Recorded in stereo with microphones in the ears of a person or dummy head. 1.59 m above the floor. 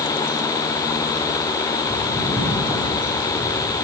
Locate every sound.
1.8 s footsteps: 15° left (ahead or behind), 3.5 m; by 3.7 s 40° left (ahead or behind), 4 m